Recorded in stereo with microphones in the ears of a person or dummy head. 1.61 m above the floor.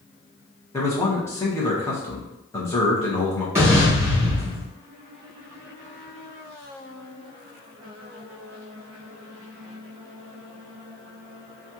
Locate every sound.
0.7 s a man speaking: 15° left (ahead or behind), 1.3 m
3.5 s an explosion: 15° right (ahead or behind), 1.9 m